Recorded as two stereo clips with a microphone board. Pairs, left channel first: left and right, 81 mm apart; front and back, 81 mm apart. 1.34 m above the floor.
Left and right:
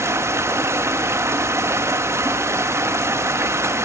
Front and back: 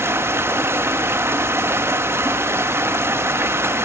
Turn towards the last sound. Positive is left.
turn(degrees=-135)